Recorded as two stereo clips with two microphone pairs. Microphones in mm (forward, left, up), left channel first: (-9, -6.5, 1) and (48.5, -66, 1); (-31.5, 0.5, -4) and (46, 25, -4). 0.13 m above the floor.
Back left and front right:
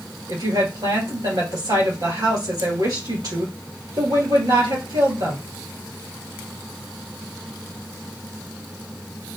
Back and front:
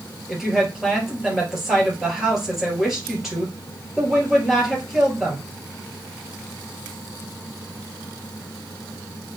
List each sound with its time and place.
0.3 s a woman speaking: 65° right, 3 m